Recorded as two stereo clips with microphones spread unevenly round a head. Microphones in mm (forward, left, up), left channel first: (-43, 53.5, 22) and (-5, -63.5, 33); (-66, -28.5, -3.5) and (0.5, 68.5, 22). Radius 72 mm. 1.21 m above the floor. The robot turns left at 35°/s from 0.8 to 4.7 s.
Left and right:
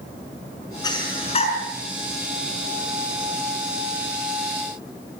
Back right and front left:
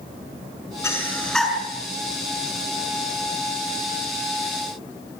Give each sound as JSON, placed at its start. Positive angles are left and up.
{"t": 0.8, "sound": "breathing", "azimuth_deg": 165, "distance_m": 6.5}